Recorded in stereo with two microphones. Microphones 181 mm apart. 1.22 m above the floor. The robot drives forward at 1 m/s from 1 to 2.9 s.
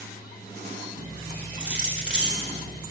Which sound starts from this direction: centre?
Keys jangling, at 1.6 s.